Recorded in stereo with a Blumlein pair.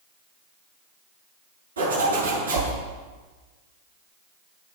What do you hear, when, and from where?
1.8 s a zipper: 70° right, 8 m